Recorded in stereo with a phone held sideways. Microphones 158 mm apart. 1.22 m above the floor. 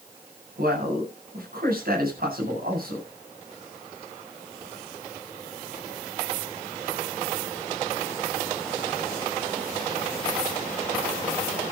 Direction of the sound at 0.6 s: 70° right (ahead or behind).